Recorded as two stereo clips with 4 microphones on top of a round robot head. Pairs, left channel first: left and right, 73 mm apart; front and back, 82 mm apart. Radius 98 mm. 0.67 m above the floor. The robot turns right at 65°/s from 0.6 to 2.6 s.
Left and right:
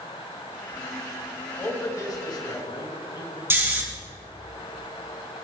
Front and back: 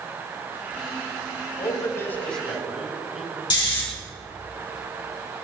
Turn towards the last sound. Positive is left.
turn(degrees=-35)